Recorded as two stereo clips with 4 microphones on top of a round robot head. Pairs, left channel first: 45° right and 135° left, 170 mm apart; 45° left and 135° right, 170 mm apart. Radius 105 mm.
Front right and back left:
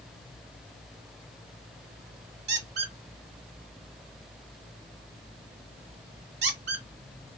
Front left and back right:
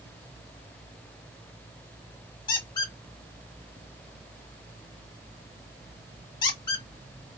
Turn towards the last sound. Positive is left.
turn(degrees=110)